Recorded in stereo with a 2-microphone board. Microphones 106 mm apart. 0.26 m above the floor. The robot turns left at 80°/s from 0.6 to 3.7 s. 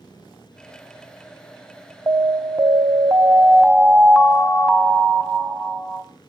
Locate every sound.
2.1 s an alarm: 45° right, 1.5 m; by 6.0 s 175° right, 1.5 m